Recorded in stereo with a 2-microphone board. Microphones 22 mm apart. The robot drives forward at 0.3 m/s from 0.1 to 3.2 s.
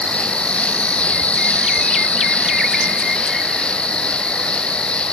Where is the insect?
55° left (ahead or behind), 0.9 m; by 5.1 s 60° left (ahead or behind), 0.8 m.